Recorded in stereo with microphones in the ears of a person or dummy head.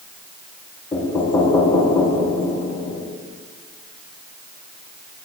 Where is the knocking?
20° left (ahead or behind), 1.6 m.